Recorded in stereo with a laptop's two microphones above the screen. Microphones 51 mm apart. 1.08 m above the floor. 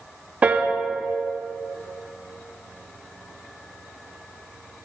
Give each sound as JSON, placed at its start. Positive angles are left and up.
{"t": 0.4, "sound": "a piano", "side_deg": -25, "distance_m": 0.6}